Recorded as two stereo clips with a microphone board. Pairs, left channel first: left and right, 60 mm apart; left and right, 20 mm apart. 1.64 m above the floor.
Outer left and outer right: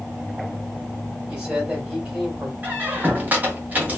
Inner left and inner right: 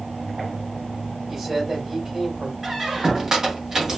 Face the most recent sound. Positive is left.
turn(degrees=-30)  # may be behind; listen again after turning